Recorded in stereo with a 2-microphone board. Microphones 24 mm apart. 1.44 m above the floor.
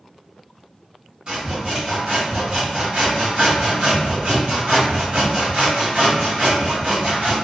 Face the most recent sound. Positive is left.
turn(degrees=-45)  # may be behind; listen again after turning